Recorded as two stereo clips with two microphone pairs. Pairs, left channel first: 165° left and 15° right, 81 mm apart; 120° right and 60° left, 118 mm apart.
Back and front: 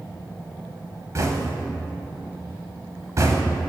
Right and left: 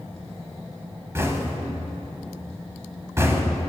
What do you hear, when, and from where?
1.1 s knocking: straight ahead, 0.8 m